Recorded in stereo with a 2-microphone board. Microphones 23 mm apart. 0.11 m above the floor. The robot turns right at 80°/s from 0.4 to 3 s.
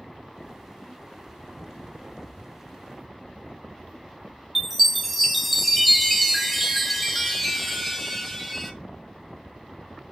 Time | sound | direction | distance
4.5 | a chime | centre (ahead or behind) | 0.6 m